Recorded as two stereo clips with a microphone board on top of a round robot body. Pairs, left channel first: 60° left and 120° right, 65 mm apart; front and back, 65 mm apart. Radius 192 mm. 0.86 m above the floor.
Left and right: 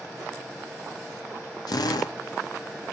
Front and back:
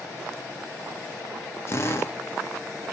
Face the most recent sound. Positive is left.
turn(degrees=50)